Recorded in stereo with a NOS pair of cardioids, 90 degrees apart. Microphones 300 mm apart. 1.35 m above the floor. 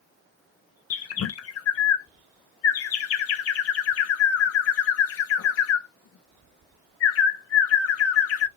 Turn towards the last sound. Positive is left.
turn(degrees=50)